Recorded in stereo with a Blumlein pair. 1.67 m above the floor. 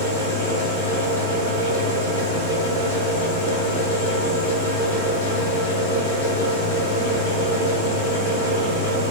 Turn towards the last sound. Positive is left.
turn(degrees=65)